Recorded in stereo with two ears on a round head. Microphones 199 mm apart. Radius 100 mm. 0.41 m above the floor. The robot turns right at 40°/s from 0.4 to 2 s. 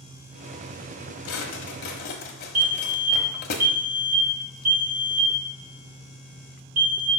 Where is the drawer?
70° left (ahead or behind), 1.1 m; by 3.5 s 45° left (ahead or behind), 1.1 m.